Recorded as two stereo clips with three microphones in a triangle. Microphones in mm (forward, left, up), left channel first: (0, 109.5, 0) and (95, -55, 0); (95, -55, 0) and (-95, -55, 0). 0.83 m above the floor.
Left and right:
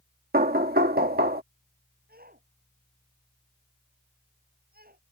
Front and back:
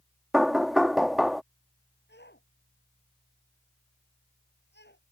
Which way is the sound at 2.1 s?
25° right.